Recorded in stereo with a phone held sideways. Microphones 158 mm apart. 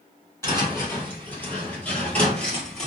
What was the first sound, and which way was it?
Footsteps, 15° left (ahead or behind).